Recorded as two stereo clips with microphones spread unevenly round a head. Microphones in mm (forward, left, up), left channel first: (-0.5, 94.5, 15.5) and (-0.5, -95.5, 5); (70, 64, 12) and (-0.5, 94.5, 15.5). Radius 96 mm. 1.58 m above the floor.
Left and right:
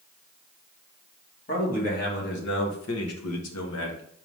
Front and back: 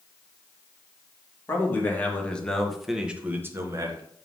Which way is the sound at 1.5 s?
40° left.